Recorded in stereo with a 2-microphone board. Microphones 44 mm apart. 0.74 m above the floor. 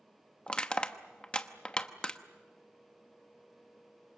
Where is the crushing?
25° left (ahead or behind), 0.9 m.